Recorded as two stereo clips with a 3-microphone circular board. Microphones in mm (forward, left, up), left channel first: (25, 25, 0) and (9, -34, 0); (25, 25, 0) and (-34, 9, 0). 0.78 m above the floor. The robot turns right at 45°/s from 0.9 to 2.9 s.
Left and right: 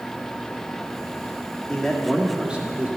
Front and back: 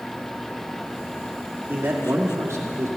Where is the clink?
I don't hear a clink.